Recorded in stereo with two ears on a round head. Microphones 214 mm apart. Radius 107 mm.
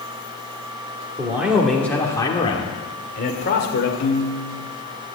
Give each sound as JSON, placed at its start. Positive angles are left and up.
{"t": 1.2, "sound": "a man speaking", "side_deg": -10, "distance_m": 1.9}
{"t": 4.0, "sound": "a piano", "side_deg": 55, "distance_m": 1.3}